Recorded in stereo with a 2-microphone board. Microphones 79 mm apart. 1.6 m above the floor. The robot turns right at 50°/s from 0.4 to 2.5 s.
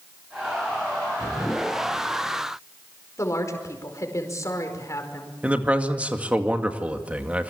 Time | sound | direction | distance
3.2 | a woman speaking | 40° left (ahead or behind) | 5 m
5.4 | a man speaking | 15° right (ahead or behind) | 2 m